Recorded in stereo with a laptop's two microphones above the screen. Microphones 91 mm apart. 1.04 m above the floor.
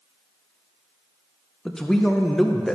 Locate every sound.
1.6 s a man speaking: 5° left (ahead or behind), 0.5 m